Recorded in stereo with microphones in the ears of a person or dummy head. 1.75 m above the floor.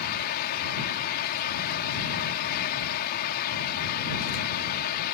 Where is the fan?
55° left (ahead or behind).